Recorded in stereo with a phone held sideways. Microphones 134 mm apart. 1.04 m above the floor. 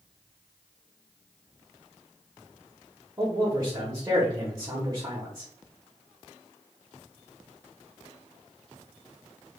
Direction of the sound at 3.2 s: 25° right (ahead or behind).